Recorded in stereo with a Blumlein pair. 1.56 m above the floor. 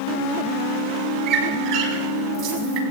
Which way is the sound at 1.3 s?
30° right.